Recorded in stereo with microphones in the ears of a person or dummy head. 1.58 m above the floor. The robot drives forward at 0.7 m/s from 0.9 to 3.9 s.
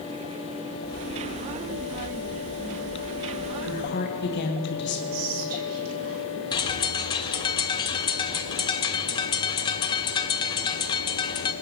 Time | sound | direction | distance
3.6 | a woman speaking | 60° left (ahead or behind) | 1.9 m
5.1 | whispering | 85° right | 3 m
6.5 | a bird | 20° left (ahead or behind) | 0.7 m